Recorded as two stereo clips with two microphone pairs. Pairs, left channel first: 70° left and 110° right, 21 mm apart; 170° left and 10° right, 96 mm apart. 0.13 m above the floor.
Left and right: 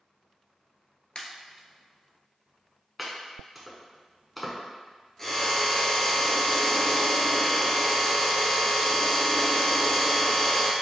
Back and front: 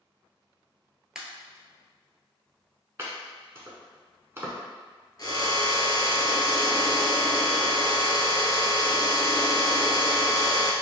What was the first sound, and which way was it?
A pop, 75° left.